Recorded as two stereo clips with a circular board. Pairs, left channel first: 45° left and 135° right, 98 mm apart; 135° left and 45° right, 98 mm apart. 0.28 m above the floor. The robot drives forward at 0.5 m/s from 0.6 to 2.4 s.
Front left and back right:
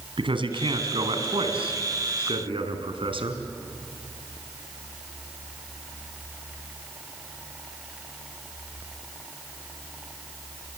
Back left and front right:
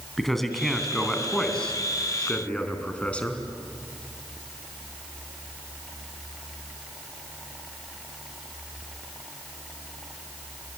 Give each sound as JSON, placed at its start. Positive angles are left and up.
{"t": 0.2, "sound": "a man speaking", "azimuth_deg": -140, "distance_m": 3.0}